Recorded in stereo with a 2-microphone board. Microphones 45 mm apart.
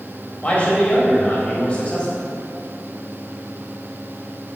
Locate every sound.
0.4 s a man speaking: 30° left (ahead or behind), 3.5 m